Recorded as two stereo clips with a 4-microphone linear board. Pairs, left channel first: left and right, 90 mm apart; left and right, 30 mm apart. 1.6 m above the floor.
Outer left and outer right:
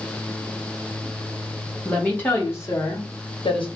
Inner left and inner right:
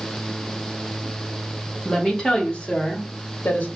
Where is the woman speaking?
15° left (ahead or behind), 1.6 m; by 3.7 s 75° left (ahead or behind), 1.1 m.